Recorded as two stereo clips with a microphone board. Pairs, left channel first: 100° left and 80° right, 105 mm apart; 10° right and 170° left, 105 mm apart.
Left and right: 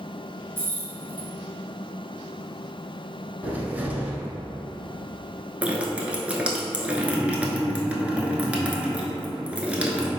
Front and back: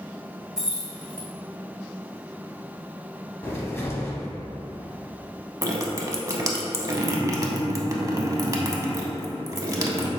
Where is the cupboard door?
30° right, 0.7 m.